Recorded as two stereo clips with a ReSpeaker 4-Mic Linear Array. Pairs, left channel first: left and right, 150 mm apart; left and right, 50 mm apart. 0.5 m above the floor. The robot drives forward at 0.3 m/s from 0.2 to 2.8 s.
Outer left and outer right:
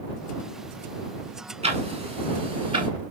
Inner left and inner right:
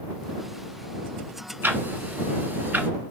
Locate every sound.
1.6 s ticking: 50° right (ahead or behind), 1.1 m; by 2.9 s 40° right (ahead or behind), 1.3 m